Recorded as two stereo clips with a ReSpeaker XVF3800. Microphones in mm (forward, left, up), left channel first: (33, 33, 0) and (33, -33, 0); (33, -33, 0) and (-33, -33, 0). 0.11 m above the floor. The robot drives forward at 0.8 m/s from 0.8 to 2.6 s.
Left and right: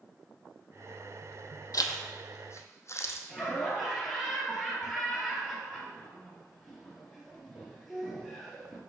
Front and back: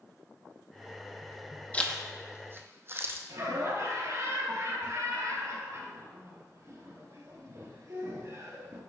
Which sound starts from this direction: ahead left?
A zipper, at 1.7 s.